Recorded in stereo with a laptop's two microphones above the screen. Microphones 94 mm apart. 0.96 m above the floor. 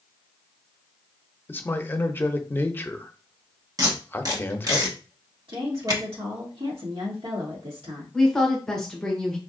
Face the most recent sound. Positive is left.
turn(degrees=5)  # may be behind; listen again after turning